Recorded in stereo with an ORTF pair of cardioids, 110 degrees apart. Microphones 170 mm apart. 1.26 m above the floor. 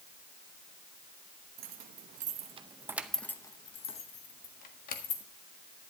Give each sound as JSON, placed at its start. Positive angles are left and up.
{"t": 1.6, "sound": "keys jangling", "azimuth_deg": -65, "distance_m": 1.3}